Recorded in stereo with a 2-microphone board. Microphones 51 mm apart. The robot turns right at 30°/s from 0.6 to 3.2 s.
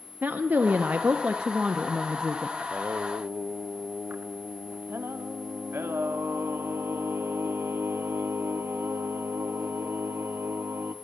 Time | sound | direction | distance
0.2 | a woman speaking | 55° right | 0.6 m
2.6 | singing | 30° right (ahead or behind) | 0.6 m